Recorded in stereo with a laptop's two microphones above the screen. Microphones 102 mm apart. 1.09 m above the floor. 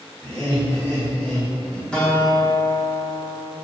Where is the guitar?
5° left (ahead or behind), 0.7 m.